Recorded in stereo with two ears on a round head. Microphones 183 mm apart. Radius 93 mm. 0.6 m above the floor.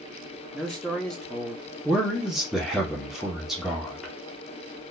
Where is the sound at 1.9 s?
Centre (ahead or behind), 1.0 m.